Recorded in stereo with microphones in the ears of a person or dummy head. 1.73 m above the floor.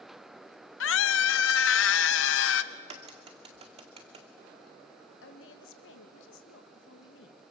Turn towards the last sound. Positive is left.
turn(degrees=75)  # may be behind; listen again after turning